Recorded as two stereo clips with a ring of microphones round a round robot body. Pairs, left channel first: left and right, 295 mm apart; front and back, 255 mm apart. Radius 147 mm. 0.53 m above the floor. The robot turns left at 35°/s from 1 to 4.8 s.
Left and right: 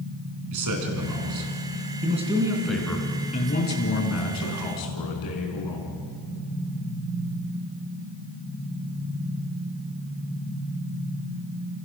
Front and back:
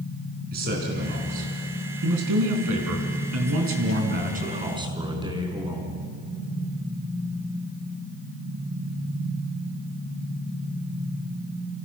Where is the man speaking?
120° right, 4.5 m; by 5.9 s 105° left, 4.5 m.